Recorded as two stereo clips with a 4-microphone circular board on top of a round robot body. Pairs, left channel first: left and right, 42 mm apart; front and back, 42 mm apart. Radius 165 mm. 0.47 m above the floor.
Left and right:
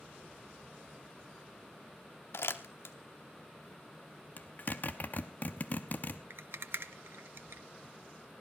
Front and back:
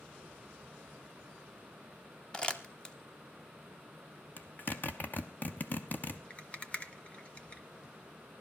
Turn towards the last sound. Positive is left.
turn(degrees=-60)